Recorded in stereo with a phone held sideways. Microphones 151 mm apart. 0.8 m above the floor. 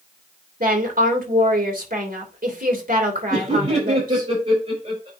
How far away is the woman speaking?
About 3 m.